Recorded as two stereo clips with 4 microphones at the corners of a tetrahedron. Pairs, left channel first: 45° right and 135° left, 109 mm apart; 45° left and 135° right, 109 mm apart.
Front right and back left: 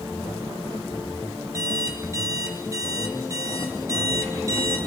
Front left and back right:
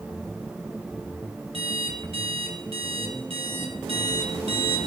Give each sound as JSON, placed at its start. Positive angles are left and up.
{"t": 1.5, "sound": "an alarm clock", "azimuth_deg": -165, "distance_m": 2.0}